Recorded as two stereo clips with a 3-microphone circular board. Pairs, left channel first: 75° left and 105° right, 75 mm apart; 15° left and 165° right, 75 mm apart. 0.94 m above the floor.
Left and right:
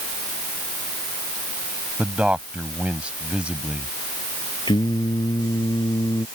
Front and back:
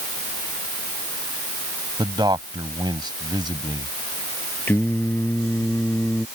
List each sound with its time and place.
2.0 s a man speaking: straight behind
4.7 s singing: 80° left